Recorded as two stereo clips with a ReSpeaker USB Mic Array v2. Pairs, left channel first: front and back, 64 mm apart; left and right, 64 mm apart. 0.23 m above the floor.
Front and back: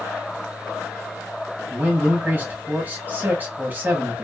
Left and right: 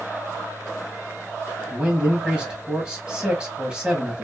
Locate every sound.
1.7 s a man speaking: 155° right, 1.2 m